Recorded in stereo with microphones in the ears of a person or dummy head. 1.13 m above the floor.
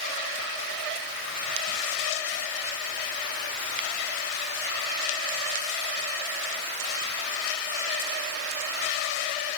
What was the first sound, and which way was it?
Only background noise.